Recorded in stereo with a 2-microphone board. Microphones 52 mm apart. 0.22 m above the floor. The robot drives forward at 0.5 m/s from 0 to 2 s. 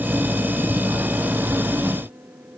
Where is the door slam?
No door slam in this recording.